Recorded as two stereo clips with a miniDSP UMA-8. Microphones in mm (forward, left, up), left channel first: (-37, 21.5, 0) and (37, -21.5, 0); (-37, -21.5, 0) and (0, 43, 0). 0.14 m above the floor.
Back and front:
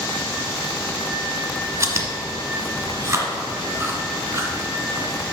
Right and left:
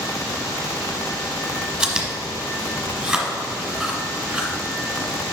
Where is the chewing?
15° right, 1.5 m.